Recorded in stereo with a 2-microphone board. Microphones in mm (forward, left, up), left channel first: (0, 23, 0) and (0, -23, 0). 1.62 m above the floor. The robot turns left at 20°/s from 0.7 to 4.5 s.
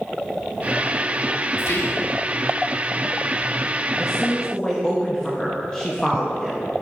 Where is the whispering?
75° left (ahead or behind), 1.5 m; by 2.1 s 85° left, 1.5 m.